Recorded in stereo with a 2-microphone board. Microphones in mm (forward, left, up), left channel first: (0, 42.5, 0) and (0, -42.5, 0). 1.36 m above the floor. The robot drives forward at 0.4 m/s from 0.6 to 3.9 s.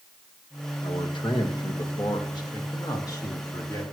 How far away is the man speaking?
About 1.5 m.